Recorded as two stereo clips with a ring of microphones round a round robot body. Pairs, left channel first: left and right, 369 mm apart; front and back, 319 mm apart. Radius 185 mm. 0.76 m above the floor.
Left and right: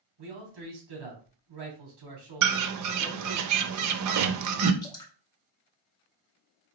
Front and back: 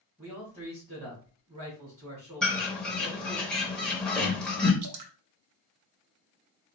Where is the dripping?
170° left, 0.9 m.